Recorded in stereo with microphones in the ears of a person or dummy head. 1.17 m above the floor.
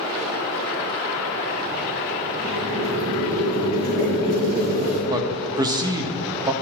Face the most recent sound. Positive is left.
turn(degrees=-25)  # may be behind; listen again after turning